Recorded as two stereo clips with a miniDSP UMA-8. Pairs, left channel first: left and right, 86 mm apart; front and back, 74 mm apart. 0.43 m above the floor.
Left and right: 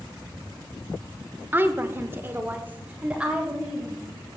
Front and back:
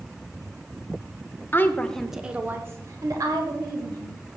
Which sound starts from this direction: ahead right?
A woman speaking, at 1.5 s.